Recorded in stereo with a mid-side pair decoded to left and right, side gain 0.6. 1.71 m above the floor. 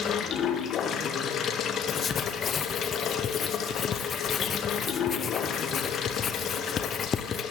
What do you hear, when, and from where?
0.0 s running water: 50° left, 1.9 m
1.9 s writing: 40° left, 1.0 m